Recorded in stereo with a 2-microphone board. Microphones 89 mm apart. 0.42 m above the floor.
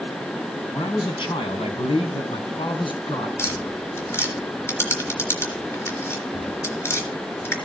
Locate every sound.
0.7 s a man speaking: 55° left (ahead or behind), 3 m; by 3.3 s 60° left (ahead or behind), 4 m
3.4 s tapping: 30° left (ahead or behind), 3.5 m